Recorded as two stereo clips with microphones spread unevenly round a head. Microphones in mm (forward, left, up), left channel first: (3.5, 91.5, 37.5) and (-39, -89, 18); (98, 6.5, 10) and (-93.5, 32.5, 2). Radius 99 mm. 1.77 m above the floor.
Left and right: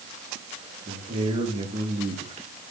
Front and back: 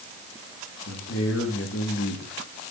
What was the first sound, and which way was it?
A man speaking, 40° right.